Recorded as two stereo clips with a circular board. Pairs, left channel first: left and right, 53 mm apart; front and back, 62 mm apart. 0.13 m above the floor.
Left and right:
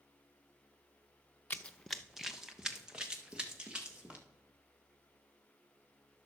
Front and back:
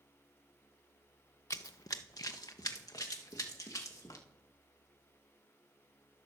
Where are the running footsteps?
30° left, 0.5 m; by 4.2 s 20° right, 3 m.